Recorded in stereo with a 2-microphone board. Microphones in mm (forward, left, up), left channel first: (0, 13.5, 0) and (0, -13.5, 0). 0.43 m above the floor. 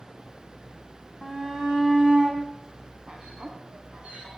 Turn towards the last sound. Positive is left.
turn(degrees=-45)  # may be behind; listen again after turning